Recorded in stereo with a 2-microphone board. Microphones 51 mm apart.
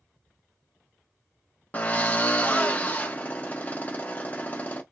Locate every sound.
1.7 s a drill: 30° left (ahead or behind), 1.2 m